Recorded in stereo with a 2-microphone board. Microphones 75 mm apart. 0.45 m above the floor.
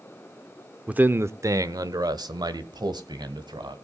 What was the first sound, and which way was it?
A man speaking, 15° right (ahead or behind).